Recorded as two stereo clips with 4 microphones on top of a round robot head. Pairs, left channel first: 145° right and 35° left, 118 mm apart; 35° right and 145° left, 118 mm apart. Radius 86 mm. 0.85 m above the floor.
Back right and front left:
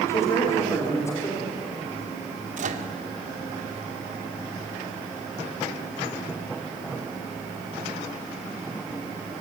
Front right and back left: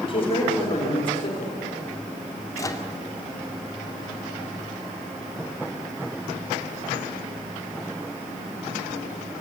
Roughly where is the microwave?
Ahead left.